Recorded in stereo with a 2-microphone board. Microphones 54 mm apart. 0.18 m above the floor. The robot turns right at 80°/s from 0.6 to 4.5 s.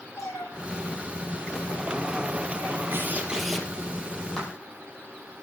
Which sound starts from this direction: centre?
A clap, at 4.4 s.